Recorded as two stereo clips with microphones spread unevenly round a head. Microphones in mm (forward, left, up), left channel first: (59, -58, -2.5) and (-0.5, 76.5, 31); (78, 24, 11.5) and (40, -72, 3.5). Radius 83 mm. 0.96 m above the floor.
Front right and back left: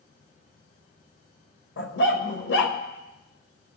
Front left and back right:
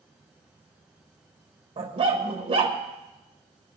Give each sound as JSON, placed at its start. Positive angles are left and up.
{"t": 1.8, "sound": "a dog barking", "azimuth_deg": -80, "distance_m": 1.7}